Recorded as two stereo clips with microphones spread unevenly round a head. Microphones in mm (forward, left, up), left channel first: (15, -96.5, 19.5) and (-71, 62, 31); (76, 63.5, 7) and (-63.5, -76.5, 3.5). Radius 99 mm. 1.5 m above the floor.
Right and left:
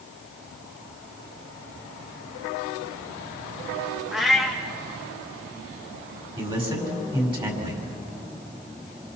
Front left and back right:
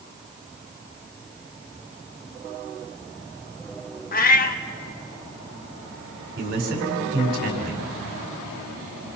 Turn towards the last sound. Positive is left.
turn(degrees=180)